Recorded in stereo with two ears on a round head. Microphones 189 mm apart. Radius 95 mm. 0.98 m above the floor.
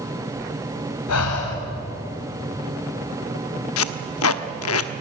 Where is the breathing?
85° left, 5 m.